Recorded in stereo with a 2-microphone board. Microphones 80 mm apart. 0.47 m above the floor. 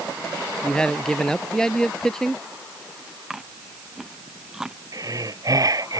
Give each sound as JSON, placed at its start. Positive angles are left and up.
{"t": 0.6, "sound": "a man speaking", "side_deg": 10}
{"t": 3.3, "sound": "chewing", "side_deg": -5}
{"t": 4.9, "sound": "breathing", "side_deg": -45}